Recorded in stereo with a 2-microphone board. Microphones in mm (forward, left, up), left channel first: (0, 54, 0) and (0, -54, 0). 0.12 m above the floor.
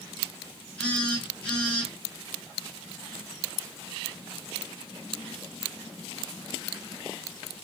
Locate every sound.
0.8 s a phone buzzing: 10° left (ahead or behind), 1.6 m